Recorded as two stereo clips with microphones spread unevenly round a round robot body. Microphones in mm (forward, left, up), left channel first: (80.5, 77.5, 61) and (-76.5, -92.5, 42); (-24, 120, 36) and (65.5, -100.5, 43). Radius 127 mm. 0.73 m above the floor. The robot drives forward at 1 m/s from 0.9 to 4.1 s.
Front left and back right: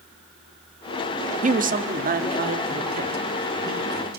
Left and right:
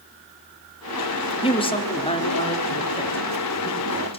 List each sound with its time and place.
1.4 s a man speaking: straight behind, 1.4 m